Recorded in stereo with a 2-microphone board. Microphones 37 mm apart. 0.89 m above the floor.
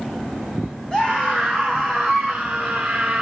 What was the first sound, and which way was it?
A scream, 20° left (ahead or behind).